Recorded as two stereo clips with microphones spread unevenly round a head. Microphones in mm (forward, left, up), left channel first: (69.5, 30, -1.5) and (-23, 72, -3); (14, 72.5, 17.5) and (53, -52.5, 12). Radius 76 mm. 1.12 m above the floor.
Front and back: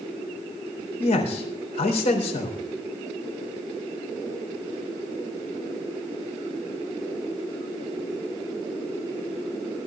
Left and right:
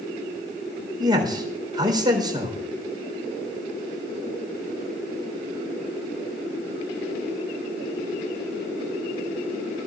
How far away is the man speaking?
About 3.5 m.